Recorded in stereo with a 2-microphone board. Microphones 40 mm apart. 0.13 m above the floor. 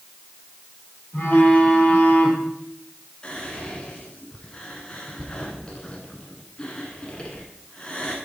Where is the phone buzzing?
40° left (ahead or behind), 3.5 m.